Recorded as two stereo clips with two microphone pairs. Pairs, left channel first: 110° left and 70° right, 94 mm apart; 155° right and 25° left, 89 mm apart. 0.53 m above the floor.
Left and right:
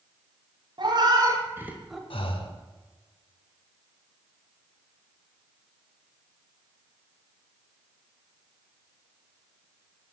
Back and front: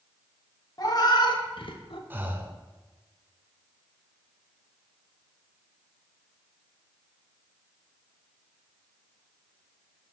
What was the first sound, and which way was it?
A cat meowing, 110° right.